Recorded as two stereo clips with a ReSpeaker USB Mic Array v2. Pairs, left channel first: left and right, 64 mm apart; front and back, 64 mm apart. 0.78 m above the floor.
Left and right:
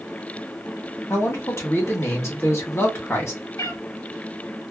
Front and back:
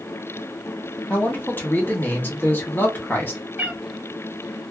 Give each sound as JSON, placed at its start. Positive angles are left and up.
{"t": 1.1, "sound": "a man speaking", "azimuth_deg": 55, "distance_m": 1.7}
{"t": 3.6, "sound": "a cat meowing", "azimuth_deg": 115, "distance_m": 0.8}